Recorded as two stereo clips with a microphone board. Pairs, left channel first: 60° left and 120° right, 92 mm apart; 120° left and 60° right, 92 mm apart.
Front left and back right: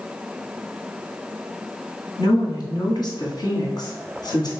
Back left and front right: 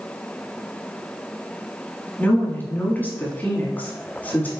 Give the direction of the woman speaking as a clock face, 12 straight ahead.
10 o'clock.